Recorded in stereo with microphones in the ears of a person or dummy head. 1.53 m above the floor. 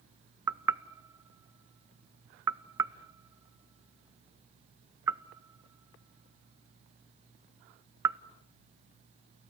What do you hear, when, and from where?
0.5 s knocking: 10° right (ahead or behind), 0.6 m